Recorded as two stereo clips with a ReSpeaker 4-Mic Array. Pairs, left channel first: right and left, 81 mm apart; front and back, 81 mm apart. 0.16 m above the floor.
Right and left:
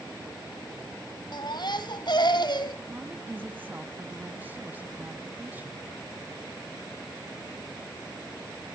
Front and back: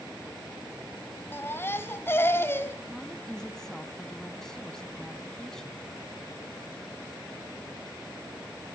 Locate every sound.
1.3 s a baby crying: 60° right, 1.4 m
2.9 s a woman speaking: 75° left, 1.1 m